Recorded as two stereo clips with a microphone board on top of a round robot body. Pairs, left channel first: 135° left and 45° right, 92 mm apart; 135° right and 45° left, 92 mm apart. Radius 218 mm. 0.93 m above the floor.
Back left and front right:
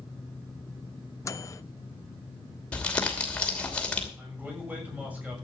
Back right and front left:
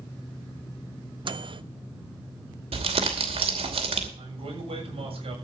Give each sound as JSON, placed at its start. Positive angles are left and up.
{"t": 1.2, "sound": "a microwave", "azimuth_deg": 75, "distance_m": 0.7}
{"t": 2.7, "sound": "crumpling", "azimuth_deg": 55, "distance_m": 2.5}
{"t": 4.2, "sound": "a man speaking", "azimuth_deg": 30, "distance_m": 7.0}